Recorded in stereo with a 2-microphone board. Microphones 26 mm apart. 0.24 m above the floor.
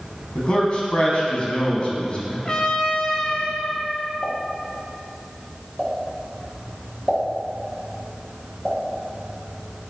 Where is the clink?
I don't hear a clink.